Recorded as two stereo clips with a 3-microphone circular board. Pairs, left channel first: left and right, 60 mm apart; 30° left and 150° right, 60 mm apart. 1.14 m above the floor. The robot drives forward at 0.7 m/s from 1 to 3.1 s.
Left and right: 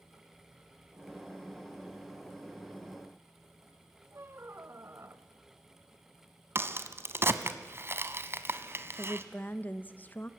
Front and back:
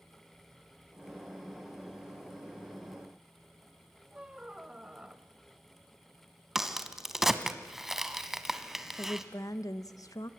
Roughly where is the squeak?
Right.